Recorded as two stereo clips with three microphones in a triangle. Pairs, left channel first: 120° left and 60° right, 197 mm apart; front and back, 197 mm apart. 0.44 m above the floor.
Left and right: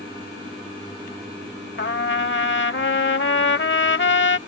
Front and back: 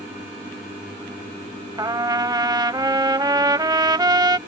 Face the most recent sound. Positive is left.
turn(degrees=110)